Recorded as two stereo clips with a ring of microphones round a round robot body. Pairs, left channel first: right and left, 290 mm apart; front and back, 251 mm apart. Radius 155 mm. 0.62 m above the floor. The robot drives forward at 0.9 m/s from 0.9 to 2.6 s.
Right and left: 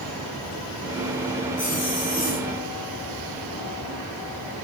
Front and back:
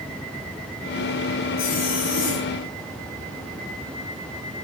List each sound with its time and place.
1.6 s a zipper: 30° right, 5.5 m; by 2.5 s 35° right, 4.5 m